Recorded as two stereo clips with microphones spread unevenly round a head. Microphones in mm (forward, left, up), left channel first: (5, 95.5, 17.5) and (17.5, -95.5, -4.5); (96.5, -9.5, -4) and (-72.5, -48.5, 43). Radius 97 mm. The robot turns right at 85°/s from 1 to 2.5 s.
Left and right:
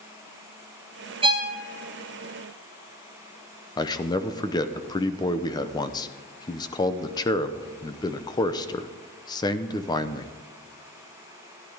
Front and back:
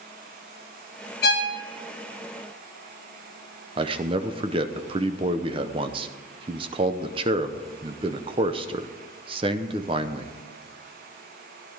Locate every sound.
1.2 s a violin: 25° right, 2.0 m; by 1.6 s 5° left, 2.0 m
3.8 s a man speaking: 155° left, 0.8 m